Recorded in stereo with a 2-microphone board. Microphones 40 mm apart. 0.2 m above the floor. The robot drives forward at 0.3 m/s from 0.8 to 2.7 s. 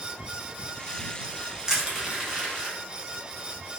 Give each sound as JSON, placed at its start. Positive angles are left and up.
{"t": 1.7, "sound": "crushing", "side_deg": -15, "distance_m": 0.9}